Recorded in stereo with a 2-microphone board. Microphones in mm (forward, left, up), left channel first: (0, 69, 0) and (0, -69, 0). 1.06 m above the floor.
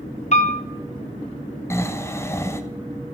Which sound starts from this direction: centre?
Snoring, at 1.7 s.